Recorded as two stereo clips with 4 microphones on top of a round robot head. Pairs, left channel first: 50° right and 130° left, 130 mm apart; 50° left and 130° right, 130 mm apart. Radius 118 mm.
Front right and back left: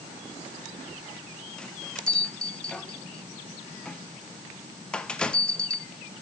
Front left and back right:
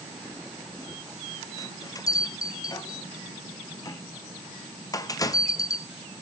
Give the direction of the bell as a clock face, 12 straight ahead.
11 o'clock.